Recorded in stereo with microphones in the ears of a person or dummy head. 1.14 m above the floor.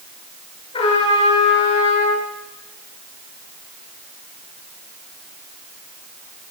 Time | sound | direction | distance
0.7 | a trumpet | 30° left (ahead or behind) | 8.5 m